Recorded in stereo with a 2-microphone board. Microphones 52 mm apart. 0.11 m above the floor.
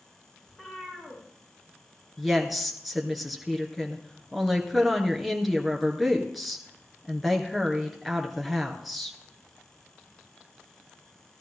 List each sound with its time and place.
0.5 s a cat meowing: 20° left (ahead or behind), 6 m
2.2 s a woman speaking: 5° right (ahead or behind), 1.9 m